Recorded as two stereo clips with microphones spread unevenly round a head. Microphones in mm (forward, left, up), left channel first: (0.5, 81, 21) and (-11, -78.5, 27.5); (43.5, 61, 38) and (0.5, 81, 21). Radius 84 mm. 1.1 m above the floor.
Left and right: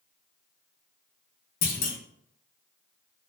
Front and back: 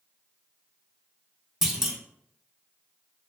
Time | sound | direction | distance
1.6 | a clunk | 60° left | 0.7 m